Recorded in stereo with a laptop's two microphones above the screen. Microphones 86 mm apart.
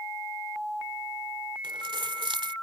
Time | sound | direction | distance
1.6 | keys jangling | 75° right (ahead or behind) | ?